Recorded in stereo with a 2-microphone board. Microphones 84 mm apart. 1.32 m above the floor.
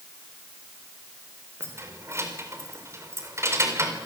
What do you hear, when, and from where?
1.6 s keys jangling: 35° right (ahead or behind), 4 m